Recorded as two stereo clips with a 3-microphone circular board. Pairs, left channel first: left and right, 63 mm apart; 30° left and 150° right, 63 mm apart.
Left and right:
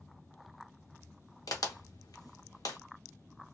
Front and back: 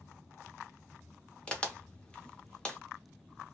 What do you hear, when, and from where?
1.5 s a crack: 100° left, 0.7 m